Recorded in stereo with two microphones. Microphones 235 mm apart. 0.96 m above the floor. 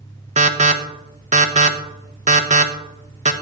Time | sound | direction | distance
0.4 | an alarm | 30° right (ahead or behind) | 0.9 m